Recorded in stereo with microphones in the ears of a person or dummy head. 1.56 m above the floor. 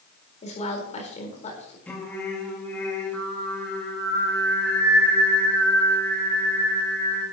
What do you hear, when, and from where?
0.4 s a woman speaking: 40° left (ahead or behind), 4 m
1.9 s singing: 15° left (ahead or behind), 4 m